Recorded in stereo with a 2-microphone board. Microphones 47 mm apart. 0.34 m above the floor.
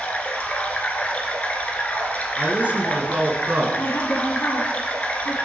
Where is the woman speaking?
65° left (ahead or behind), 2.5 m.